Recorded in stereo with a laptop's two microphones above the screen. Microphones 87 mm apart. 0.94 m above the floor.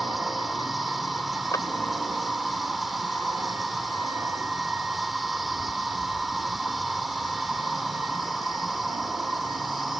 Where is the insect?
Centre (ahead or behind).